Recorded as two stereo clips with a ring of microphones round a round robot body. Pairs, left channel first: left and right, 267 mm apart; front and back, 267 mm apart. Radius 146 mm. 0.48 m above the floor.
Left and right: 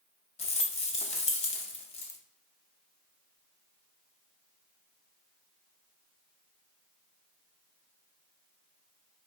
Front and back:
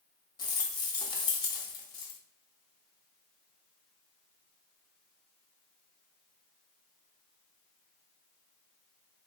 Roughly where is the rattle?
Ahead left.